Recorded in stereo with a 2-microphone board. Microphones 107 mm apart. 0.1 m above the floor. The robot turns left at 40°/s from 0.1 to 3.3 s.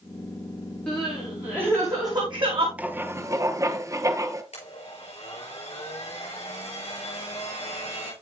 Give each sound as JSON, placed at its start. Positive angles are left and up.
{"t": 0.9, "sound": "crying", "side_deg": 5, "distance_m": 5.0}
{"t": 2.8, "sound": "writing", "side_deg": -15, "distance_m": 0.8}
{"t": 4.5, "sound": "a blender", "side_deg": 80, "distance_m": 6.0}